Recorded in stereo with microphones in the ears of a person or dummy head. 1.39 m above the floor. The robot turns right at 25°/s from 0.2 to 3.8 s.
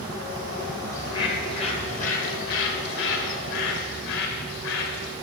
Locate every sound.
0.9 s a bird: 20° left, 0.8 m; by 5.1 s 90° left, 0.8 m